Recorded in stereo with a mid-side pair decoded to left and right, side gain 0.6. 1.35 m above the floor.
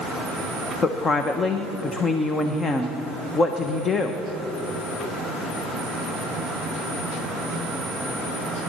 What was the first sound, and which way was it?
A woman speaking, 30° left.